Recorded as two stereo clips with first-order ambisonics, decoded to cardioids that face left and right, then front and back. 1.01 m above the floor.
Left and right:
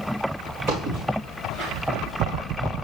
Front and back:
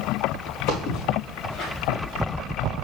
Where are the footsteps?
30° right, 4.5 m; by 2.0 s 50° right, 4 m.